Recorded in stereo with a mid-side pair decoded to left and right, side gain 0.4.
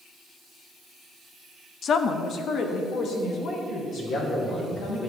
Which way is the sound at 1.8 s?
60° left.